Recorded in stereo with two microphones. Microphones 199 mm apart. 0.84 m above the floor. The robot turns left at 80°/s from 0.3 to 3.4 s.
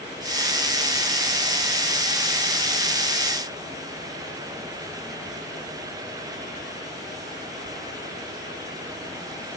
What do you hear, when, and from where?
Only background noise.